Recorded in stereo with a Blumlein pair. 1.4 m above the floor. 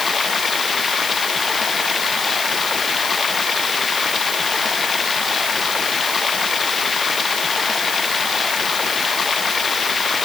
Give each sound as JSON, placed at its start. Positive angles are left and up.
{"t": 0.0, "sound": "running water", "azimuth_deg": 20}